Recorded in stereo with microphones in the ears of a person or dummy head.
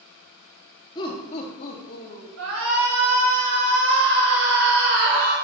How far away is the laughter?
About 1.6 m.